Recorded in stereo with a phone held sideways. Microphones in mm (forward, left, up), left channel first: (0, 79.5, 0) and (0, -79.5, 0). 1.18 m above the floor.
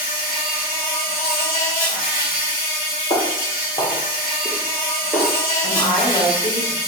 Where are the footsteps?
35° left (ahead or behind), 1.6 m; by 5.3 s 15° right (ahead or behind), 1.1 m.